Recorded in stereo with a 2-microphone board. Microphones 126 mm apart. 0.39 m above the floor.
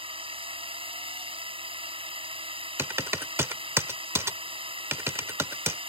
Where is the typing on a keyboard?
20° right (ahead or behind).